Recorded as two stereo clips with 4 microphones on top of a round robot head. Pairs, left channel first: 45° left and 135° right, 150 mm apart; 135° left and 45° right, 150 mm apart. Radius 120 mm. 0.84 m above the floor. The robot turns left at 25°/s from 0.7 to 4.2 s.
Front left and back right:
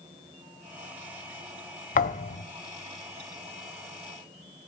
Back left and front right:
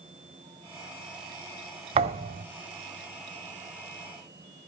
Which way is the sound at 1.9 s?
10° left.